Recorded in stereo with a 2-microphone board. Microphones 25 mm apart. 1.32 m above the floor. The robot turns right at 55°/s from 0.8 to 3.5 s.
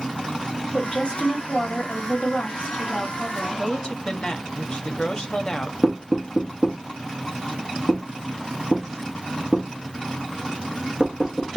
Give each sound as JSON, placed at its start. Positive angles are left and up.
{"t": 0.7, "sound": "a woman speaking", "azimuth_deg": 30, "distance_m": 2.5}
{"t": 3.6, "sound": "a woman speaking", "side_deg": 30, "distance_m": 1.0}
{"t": 5.8, "sound": "knocking", "side_deg": 10, "distance_m": 2.5}